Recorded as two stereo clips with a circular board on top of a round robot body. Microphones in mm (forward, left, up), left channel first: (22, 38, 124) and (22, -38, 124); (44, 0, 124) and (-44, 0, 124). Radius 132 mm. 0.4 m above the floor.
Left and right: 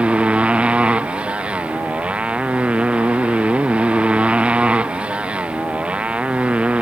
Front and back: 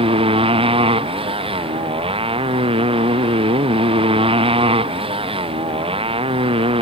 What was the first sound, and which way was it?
A motorcycle, 165° right.